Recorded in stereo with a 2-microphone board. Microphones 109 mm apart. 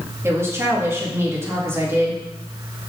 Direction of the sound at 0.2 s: 25° right (ahead or behind).